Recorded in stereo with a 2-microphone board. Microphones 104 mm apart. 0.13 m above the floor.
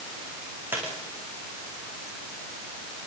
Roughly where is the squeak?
Right.